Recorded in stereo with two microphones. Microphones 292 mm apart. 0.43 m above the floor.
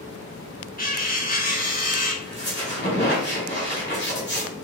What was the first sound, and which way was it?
Cutlery clinking, 30° left (ahead or behind).